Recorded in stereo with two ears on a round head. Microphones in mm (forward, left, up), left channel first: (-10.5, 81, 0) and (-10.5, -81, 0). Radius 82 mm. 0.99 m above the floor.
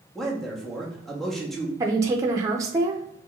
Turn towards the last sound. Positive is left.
turn(degrees=-15)  # may be behind; listen again after turning